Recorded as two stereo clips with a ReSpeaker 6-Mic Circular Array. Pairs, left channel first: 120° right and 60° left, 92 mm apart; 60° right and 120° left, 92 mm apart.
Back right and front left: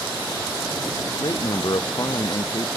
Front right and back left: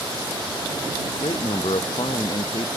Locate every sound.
1.1 s a man speaking: 80° right; by 2.7 s 70° right